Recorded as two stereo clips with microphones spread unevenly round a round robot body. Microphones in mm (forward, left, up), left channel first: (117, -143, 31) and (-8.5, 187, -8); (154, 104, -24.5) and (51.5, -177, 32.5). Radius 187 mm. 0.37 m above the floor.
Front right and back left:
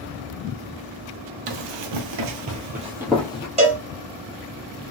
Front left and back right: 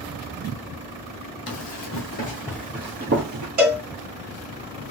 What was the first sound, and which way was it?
Running footsteps, 115° left.